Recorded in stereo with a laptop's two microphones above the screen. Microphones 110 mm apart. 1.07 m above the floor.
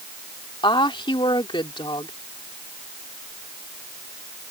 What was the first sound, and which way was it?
A woman speaking, 45° left (ahead or behind).